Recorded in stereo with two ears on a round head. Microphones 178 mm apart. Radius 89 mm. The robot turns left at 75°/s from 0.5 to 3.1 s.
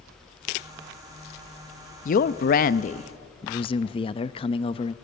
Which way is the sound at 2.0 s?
120° left.